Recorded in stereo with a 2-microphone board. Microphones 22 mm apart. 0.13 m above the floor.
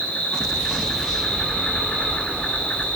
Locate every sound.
0.0 s an insect: 60° left (ahead or behind), 5 m